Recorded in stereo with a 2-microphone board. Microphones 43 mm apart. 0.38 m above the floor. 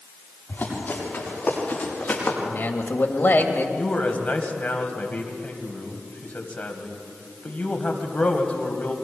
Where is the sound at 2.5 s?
50° left (ahead or behind), 1.9 m.